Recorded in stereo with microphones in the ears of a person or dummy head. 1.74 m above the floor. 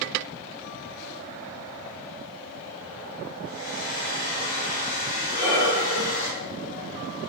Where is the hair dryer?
55° left (ahead or behind), 4 m.